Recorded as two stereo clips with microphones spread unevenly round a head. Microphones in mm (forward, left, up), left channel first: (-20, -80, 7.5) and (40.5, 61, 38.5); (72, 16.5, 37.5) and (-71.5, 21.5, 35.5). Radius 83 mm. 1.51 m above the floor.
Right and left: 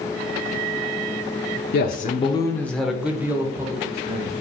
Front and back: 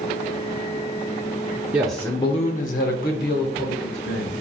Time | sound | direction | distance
1.7 | a man speaking | 105° right | 0.6 m